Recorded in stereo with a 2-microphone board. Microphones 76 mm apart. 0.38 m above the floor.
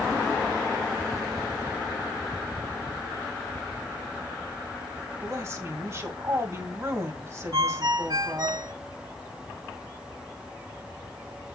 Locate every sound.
5.2 s a woman speaking: 40° right (ahead or behind), 2 m
7.5 s a ringtone: 65° right (ahead or behind), 1.8 m